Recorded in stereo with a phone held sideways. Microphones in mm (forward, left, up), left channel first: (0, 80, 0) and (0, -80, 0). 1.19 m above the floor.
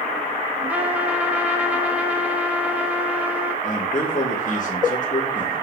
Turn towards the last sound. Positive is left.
turn(degrees=50)  # may be behind; listen again after turning